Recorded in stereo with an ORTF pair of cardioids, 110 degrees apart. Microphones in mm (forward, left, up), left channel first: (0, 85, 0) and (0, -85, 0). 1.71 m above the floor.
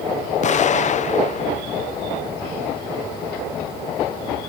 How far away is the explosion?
About 1.1 m.